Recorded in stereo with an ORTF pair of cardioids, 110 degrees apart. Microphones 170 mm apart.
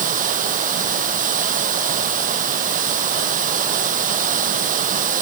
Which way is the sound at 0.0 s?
55° right.